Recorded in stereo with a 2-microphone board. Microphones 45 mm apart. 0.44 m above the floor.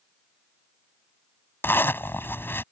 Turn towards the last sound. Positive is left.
turn(degrees=55)  # may be behind; listen again after turning